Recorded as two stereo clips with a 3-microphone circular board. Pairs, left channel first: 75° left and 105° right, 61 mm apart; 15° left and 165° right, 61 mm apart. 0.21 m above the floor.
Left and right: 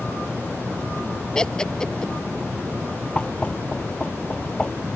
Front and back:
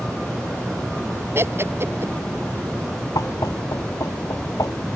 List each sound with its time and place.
1.4 s laughter: 155° left
3.1 s knocking: 5° left